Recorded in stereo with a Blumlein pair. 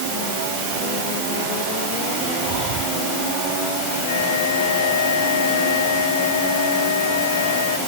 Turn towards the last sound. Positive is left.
turn(degrees=60)